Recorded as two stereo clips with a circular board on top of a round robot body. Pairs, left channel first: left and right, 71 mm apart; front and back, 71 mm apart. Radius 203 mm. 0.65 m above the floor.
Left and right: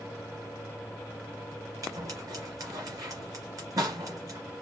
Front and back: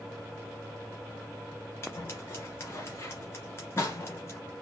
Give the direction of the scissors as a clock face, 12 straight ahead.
2 o'clock.